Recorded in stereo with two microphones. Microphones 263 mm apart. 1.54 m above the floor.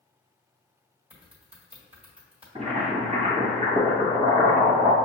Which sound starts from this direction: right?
Boiling, at 2.5 s.